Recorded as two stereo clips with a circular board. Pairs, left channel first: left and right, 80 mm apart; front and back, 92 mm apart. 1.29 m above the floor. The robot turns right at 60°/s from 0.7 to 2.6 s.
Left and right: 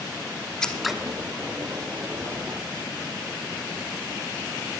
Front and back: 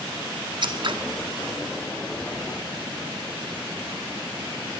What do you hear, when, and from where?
0.6 s scissors: 170° left, 1.1 m; by 0.9 s 175° right, 1.1 m